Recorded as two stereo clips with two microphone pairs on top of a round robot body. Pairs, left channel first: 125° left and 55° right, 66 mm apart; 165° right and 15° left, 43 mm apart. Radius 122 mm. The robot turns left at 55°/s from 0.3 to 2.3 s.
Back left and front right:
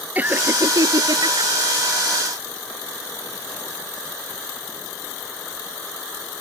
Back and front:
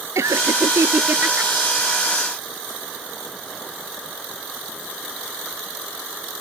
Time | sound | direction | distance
0.1 | laughter | 10° left | ?